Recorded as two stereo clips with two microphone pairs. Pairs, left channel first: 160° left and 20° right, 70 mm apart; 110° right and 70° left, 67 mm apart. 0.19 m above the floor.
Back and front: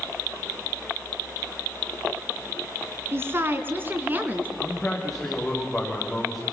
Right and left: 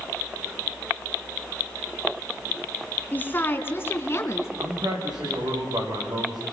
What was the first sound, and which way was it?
A woman speaking, 60° right.